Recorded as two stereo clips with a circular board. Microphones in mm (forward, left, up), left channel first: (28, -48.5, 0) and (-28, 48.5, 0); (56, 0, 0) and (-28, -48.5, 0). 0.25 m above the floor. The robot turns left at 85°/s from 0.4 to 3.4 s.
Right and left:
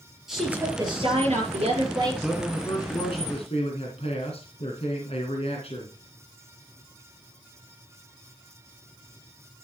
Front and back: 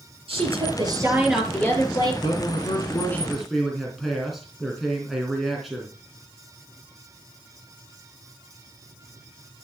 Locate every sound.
0.3 s a woman speaking: 155° right, 6 m; by 2.1 s 60° left, 6 m
2.2 s a man speaking: 40° left, 3 m; by 6.0 s 60° right, 3 m